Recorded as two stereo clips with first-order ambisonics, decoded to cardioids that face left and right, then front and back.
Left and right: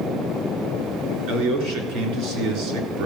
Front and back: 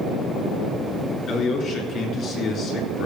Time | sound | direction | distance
1.3 | a man speaking | 55° right | 3.5 m